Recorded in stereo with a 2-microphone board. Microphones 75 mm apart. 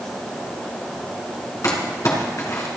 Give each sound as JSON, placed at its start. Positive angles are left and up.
{"t": 1.6, "sound": "crumpling", "side_deg": 45, "distance_m": 3.0}